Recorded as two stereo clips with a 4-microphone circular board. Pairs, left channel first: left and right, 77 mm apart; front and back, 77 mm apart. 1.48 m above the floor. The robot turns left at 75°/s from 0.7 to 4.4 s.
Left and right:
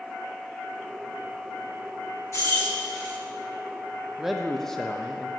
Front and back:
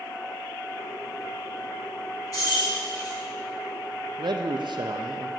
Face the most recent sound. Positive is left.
turn(degrees=175)